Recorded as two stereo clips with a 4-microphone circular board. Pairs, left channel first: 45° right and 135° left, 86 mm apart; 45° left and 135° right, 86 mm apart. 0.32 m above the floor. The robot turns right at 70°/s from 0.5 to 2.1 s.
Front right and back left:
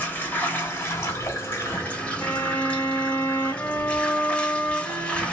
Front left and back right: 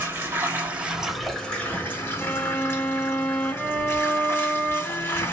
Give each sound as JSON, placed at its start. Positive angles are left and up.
{"t": 0.0, "sound": "running water", "azimuth_deg": -90, "distance_m": 1.2}
{"t": 2.2, "sound": "a violin", "azimuth_deg": -5, "distance_m": 1.1}